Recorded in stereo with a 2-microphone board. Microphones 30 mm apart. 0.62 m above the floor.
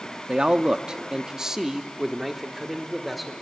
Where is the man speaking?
30° right (ahead or behind), 0.8 m; by 3.3 s centre (ahead or behind), 1.9 m.